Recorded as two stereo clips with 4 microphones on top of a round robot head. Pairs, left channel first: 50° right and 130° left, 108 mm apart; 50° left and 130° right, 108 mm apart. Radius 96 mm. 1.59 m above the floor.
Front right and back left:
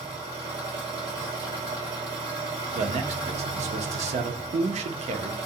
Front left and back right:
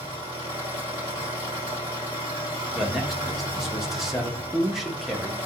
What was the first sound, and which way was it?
An engine running, 90° left.